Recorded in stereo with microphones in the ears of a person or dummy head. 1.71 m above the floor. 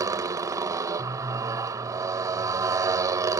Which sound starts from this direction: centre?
A motorcycle, at 0.0 s.